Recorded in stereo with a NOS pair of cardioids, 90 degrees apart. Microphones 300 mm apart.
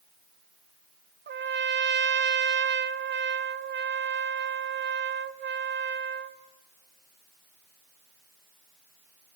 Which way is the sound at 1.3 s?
35° right.